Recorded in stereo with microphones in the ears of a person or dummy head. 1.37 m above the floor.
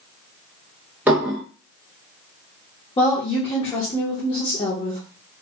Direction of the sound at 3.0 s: 25° left (ahead or behind).